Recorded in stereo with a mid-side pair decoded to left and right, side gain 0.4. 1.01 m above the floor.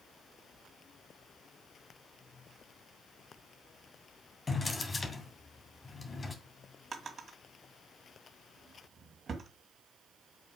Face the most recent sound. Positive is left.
turn(degrees=-45)